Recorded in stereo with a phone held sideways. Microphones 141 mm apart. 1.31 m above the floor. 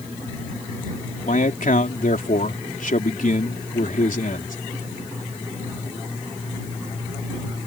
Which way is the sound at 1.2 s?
75° left (ahead or behind).